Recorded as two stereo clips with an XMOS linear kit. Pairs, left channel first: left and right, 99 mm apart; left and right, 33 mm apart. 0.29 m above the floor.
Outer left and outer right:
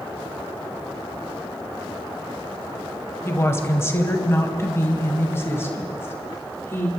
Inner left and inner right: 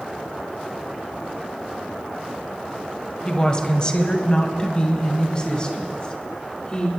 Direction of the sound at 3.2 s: 25° left (ahead or behind).